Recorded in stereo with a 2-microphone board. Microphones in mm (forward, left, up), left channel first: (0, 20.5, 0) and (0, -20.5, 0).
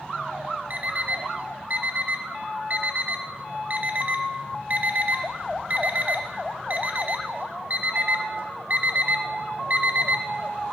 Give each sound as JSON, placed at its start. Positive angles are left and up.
{"t": 0.7, "sound": "an alarm clock", "side_deg": -45, "distance_m": 0.8}